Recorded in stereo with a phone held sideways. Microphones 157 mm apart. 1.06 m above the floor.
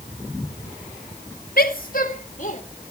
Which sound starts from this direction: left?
A woman speaking, at 1.6 s.